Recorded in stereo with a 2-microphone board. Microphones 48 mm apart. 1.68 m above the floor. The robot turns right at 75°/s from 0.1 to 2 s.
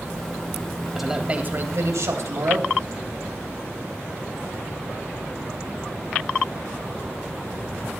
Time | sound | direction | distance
0.9 | a man speaking | straight behind | 2 m